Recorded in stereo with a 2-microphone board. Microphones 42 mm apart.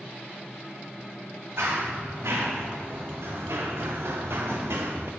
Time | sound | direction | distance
1.6 | running footsteps | 85° right | 3.5 m